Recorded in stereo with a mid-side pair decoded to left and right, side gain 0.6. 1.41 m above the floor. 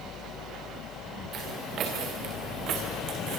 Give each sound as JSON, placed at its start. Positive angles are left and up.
{"t": 1.3, "sound": "footsteps", "azimuth_deg": -50, "distance_m": 7.0}